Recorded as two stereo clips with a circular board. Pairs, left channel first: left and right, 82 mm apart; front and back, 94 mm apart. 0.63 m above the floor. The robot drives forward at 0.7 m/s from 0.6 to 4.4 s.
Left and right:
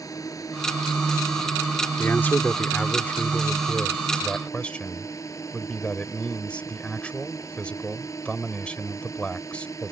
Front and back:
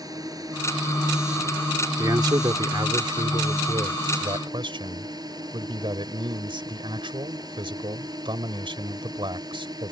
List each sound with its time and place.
0.0 s a drone: 135° left
2.0 s a man speaking: 145° left; by 9.9 s 165° left